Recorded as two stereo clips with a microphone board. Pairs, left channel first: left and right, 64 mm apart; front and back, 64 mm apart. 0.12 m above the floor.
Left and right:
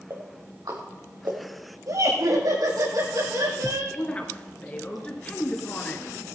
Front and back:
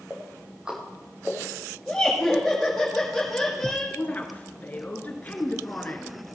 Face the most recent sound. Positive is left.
turn(degrees=40)